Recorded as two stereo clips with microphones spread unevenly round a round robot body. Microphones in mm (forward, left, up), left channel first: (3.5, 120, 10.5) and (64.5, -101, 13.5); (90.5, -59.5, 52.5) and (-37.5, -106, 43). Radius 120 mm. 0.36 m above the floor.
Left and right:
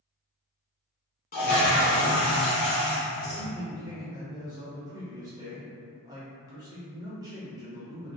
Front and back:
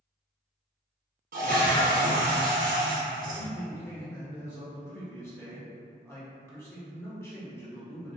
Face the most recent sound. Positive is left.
turn(degrees=-25)